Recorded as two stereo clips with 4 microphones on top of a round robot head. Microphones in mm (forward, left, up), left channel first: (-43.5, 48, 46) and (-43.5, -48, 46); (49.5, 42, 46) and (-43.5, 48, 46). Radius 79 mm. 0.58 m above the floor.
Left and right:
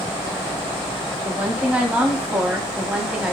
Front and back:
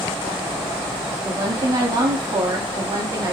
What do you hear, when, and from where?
1.2 s a woman speaking: 165° right, 0.9 m